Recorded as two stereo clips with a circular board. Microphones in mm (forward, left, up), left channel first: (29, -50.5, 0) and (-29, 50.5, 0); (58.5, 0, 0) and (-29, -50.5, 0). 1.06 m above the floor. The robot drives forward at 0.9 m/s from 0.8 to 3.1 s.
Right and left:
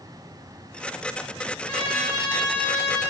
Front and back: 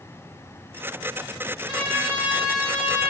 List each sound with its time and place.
1.7 s a trumpet: 105° right, 2 m; by 3.0 s 130° right, 2.5 m